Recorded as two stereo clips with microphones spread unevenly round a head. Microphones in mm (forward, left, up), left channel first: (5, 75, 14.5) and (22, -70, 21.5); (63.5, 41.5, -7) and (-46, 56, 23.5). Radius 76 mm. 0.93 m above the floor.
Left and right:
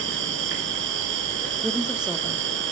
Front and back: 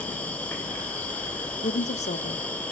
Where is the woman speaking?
Straight ahead, 1.8 m.